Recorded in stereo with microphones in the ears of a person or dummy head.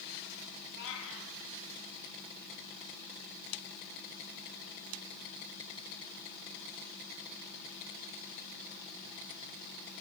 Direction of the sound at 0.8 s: 75° left (ahead or behind).